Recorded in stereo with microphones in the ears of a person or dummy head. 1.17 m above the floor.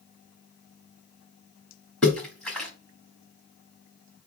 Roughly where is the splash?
Centre.